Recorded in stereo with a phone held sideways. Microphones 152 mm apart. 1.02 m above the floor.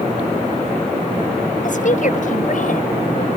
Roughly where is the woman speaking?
Left.